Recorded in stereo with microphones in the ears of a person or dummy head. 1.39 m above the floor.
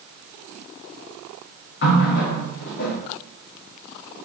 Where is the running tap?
65° left (ahead or behind), 1.2 m.